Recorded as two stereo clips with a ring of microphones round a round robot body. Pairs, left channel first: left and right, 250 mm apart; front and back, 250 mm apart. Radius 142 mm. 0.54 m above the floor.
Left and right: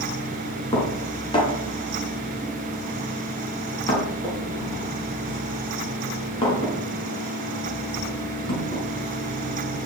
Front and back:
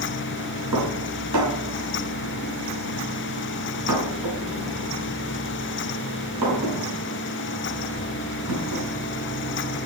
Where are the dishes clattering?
160° left, 5 m.